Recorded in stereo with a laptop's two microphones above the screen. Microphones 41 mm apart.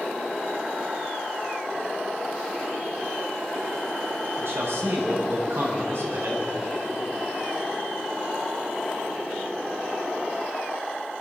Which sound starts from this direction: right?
A man speaking, at 4.4 s.